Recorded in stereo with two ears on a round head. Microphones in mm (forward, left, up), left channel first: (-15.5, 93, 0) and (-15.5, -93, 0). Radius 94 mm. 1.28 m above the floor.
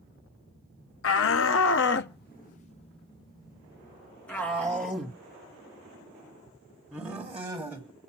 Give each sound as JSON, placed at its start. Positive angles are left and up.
{"t": 1.0, "sound": "a shout", "side_deg": 70, "distance_m": 0.9}